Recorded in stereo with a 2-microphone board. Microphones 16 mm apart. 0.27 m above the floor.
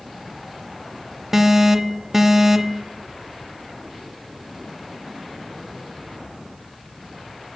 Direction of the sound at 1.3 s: 25° right (ahead or behind).